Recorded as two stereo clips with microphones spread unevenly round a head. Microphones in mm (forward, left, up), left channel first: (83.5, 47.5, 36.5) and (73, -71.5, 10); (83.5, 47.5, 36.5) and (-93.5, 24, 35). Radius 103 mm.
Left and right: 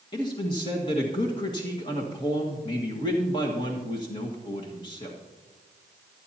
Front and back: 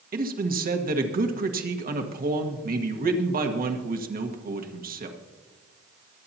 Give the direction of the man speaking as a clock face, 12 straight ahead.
7 o'clock.